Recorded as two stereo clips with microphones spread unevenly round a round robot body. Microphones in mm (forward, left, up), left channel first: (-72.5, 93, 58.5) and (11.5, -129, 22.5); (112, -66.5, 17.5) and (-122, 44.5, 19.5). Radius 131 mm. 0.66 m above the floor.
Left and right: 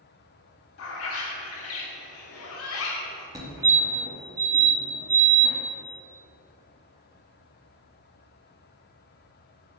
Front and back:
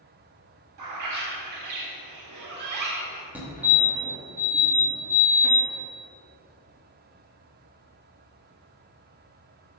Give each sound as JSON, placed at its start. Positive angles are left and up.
{"t": 0.8, "sound": "a bird", "azimuth_deg": 140, "distance_m": 1.5}
{"t": 3.4, "sound": "a fire alarm", "azimuth_deg": -125, "distance_m": 1.7}